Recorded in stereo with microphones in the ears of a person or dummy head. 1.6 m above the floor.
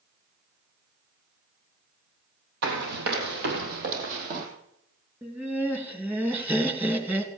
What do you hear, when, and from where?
2.6 s running footsteps: 60° right (ahead or behind), 3.5 m; by 4.5 s 50° right (ahead or behind), 3.5 m
5.2 s laughter: 15° right (ahead or behind), 3 m